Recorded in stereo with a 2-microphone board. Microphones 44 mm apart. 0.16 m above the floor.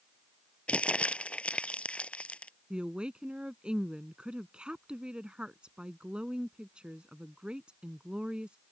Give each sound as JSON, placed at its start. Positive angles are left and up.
{"t": 0.7, "sound": "crumpling", "side_deg": 30}
{"t": 2.7, "sound": "a woman speaking", "side_deg": -25}